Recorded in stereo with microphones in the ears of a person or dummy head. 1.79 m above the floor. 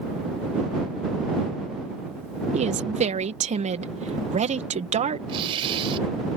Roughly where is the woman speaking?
Right.